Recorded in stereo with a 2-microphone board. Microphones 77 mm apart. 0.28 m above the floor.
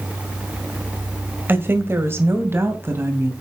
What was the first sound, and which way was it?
A woman speaking, 25° right (ahead or behind).